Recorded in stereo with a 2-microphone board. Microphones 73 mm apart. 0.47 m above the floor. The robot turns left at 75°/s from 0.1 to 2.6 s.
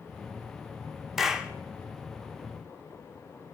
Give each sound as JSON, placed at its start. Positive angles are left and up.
{"t": 1.2, "sound": "a clap", "side_deg": 0, "distance_m": 0.8}